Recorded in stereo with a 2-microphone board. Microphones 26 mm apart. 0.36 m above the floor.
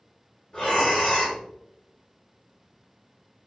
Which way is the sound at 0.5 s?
35° left (ahead or behind).